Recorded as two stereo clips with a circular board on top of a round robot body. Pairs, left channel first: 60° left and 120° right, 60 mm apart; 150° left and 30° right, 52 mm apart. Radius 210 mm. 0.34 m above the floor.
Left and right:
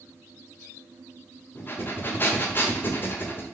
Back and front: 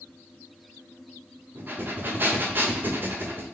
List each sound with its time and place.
1.6 s breathing: 10° left, 1.1 m